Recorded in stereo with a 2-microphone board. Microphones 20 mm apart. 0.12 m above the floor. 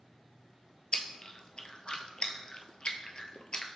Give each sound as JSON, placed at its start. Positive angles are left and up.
{"t": 0.9, "sound": "chewing", "side_deg": 50, "distance_m": 0.6}